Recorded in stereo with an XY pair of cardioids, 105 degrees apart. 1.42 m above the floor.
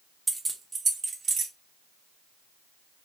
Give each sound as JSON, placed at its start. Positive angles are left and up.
{"t": 0.3, "sound": "keys jangling", "azimuth_deg": -15, "distance_m": 0.8}